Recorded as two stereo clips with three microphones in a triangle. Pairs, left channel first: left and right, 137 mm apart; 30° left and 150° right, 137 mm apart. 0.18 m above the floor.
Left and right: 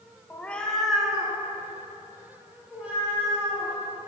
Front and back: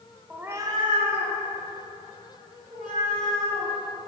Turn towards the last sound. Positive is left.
turn(degrees=-170)